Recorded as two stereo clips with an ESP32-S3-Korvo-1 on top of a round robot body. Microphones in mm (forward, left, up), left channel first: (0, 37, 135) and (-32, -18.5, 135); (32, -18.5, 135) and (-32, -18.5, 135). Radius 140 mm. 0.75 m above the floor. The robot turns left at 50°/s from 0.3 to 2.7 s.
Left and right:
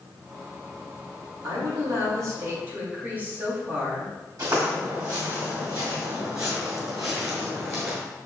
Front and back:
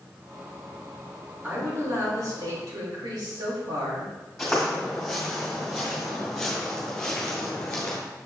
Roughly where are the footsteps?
Right.